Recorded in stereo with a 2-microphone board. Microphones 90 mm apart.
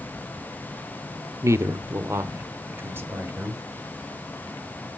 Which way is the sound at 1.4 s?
30° right (ahead or behind).